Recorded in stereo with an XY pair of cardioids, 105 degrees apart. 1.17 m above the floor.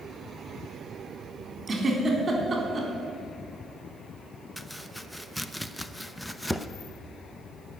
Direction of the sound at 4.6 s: 5° left.